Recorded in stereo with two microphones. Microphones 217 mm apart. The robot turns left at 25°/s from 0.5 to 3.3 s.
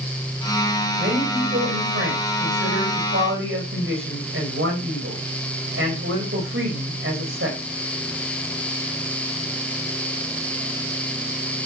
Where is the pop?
I don't hear a pop.